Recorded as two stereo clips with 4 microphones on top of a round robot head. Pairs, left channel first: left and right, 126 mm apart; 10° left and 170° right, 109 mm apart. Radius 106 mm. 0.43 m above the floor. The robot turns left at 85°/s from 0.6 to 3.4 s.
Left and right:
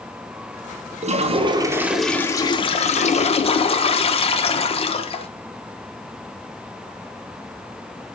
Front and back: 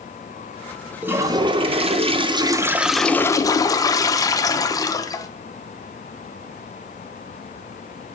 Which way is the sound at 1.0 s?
95° right.